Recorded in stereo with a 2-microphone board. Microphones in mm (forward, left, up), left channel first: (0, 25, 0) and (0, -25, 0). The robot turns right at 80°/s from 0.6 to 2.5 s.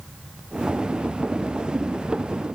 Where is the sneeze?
No sneeze in this recording.